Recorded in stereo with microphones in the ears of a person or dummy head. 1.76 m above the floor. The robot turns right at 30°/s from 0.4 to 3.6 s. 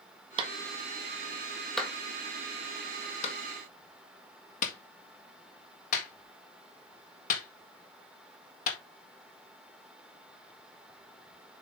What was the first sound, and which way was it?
A clap, 30° right (ahead or behind).